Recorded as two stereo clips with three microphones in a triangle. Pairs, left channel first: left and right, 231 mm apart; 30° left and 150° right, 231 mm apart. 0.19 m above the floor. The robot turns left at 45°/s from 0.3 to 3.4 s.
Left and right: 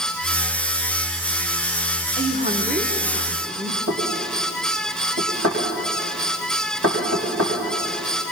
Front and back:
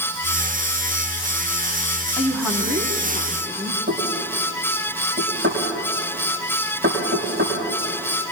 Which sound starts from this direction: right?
Knocking, at 3.9 s.